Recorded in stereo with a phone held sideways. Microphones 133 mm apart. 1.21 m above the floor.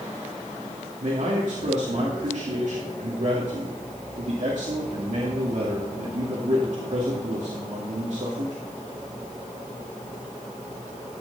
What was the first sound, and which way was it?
A man speaking, 65° right (ahead or behind).